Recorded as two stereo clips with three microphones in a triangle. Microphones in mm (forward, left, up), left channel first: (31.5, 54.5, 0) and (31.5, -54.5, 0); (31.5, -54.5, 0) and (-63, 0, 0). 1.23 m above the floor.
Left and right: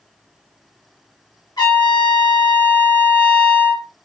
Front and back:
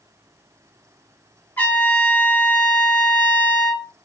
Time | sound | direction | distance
1.6 | a trumpet | 40° left | 1.4 m